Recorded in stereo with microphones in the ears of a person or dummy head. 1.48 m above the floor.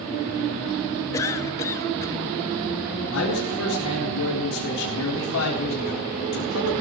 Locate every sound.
1.1 s a cough: 20° left (ahead or behind), 1.2 m
3.1 s a man speaking: 70° left (ahead or behind), 4 m